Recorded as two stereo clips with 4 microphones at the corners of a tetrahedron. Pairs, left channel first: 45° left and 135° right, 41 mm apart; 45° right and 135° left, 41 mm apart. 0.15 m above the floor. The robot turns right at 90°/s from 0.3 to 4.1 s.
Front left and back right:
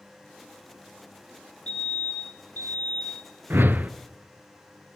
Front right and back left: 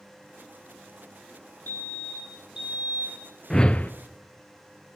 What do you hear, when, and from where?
1.7 s a fire alarm: 15° right, 9 m; by 3.2 s 125° left, 9 m
3.5 s a whoosh: 120° right, 0.6 m; by 3.9 s 85° right, 0.6 m